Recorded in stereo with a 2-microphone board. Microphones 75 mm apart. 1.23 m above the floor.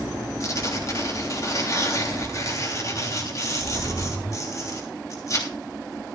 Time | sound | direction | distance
0.4 | tearing paper | 45° left (ahead or behind) | 3 m